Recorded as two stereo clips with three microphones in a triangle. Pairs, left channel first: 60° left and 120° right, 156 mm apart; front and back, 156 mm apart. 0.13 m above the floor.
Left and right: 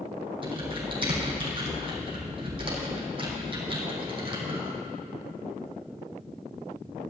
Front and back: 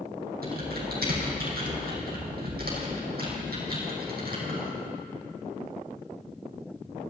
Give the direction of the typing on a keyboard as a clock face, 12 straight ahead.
6 o'clock.